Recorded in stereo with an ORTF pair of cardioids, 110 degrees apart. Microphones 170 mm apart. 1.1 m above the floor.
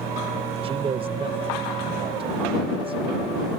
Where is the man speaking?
35° right.